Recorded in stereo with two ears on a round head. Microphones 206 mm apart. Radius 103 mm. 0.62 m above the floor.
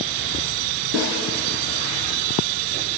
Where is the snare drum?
55° right (ahead or behind), 5.5 m.